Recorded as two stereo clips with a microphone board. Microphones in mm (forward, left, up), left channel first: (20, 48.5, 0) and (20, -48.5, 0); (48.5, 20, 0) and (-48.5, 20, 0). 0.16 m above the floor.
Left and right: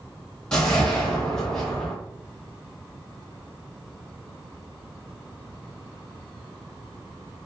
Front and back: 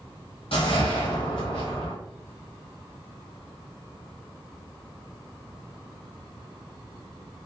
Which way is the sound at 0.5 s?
10° left.